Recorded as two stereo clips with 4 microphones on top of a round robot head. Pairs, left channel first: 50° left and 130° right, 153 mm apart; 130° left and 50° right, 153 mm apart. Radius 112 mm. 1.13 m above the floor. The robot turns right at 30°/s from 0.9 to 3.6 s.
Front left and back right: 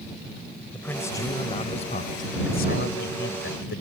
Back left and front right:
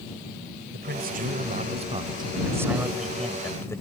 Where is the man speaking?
25° right; by 3.8 s 55° left.